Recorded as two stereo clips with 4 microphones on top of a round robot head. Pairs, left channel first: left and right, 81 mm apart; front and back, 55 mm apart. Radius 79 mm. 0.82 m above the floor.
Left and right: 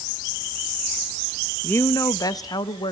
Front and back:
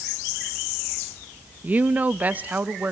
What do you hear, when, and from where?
1.6 s a woman speaking: 140° left, 0.7 m; by 2.9 s 120° left, 1.6 m